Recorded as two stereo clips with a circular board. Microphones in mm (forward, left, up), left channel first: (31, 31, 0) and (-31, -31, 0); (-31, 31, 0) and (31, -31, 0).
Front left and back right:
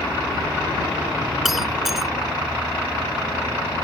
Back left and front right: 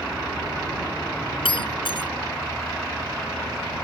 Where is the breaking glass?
140° left.